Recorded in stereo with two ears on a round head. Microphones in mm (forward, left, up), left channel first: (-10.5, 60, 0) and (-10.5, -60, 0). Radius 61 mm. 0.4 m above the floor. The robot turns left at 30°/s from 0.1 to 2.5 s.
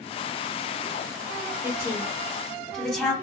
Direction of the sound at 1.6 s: 25° right (ahead or behind).